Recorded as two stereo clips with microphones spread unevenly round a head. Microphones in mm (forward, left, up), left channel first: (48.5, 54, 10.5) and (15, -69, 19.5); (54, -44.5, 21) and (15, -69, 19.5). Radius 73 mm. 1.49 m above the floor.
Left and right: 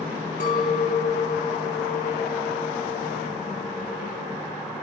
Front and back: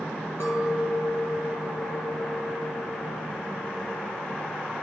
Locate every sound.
0.4 s a clink: 70° left, 0.5 m